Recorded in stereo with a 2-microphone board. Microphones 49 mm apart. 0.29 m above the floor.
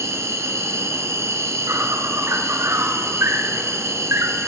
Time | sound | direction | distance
0.0 | an insect | 75° right (ahead or behind) | 0.8 m